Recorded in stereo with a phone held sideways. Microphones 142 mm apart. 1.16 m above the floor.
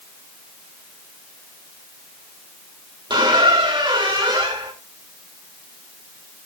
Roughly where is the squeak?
Right.